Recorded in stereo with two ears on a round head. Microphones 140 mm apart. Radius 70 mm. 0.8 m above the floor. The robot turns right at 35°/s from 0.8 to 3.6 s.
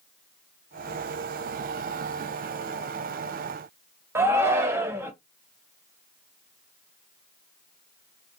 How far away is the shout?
About 0.5 m.